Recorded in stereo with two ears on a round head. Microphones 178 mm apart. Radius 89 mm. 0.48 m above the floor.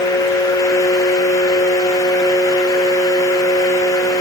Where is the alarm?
No alarm in this recording.